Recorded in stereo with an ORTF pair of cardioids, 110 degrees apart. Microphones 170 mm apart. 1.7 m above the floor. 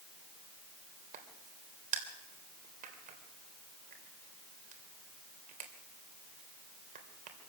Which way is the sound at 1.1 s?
55° right.